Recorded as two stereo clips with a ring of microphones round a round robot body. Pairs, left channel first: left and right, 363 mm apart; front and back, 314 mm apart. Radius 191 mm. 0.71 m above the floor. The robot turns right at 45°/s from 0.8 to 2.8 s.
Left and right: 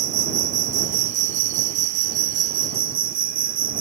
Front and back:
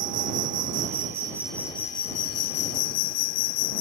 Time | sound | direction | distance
0.0 | an insect | 120° right | ?